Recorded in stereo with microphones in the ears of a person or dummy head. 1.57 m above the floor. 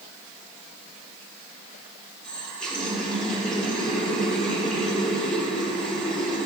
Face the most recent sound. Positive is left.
turn(degrees=5)  # may be behind; listen again after turning